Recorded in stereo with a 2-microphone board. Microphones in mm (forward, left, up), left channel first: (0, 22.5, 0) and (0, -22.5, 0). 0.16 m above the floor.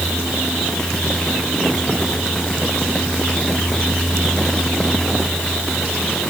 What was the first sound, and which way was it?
Only background noise.